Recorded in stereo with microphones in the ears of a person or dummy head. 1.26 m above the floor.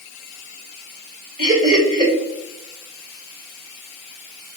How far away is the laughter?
About 1.9 m.